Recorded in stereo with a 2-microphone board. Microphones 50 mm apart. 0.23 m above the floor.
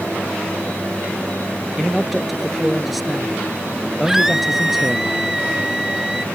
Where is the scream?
10° right (ahead or behind).